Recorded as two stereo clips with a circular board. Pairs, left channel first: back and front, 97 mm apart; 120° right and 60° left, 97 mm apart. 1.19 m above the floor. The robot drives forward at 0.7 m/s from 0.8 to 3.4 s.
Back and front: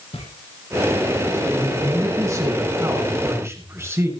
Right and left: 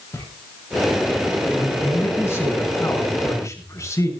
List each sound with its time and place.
0.1 s footsteps: 175° left, 9.5 m
1.5 s a man speaking: 50° right, 7.5 m; by 4.1 s 60° right, 7 m